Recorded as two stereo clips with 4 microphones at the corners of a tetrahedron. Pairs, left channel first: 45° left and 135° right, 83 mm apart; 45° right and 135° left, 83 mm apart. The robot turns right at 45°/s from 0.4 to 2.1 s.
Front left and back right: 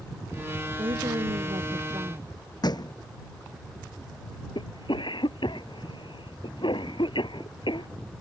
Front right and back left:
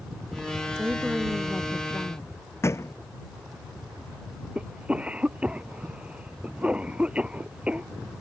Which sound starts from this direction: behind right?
A woman speaking, at 0.8 s.